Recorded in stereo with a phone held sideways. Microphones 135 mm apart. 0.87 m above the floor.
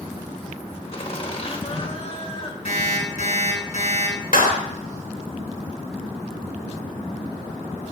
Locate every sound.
0.9 s laughter: 45° left (ahead or behind), 3 m
2.6 s an alarm clock: 55° left (ahead or behind), 6 m
4.3 s a clap: 85° left, 2 m